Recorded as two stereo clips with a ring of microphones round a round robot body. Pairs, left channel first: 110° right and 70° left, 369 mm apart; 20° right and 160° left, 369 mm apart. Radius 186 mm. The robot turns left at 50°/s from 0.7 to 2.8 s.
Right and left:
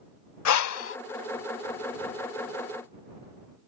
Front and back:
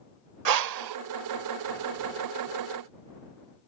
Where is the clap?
No clap in this recording.